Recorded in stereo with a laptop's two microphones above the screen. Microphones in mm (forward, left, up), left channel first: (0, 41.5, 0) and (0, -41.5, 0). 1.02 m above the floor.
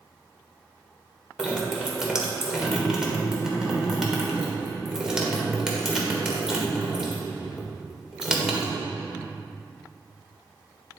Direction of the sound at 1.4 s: 10° right (ahead or behind).